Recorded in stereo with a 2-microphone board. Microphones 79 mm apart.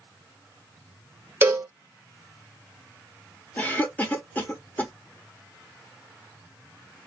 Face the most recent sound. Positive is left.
turn(degrees=20)  # may be behind; listen again after turning